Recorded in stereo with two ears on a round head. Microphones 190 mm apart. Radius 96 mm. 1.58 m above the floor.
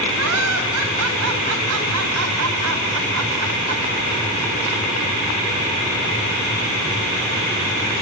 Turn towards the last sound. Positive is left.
turn(degrees=-85)